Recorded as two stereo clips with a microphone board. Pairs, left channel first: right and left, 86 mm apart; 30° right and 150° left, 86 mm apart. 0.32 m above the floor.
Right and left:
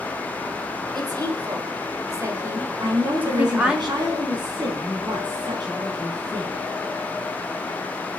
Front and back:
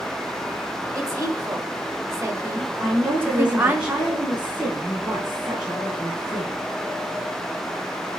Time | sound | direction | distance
0.9 | a woman speaking | 105° left | 2.5 m
2.8 | a woman speaking | 75° left | 3 m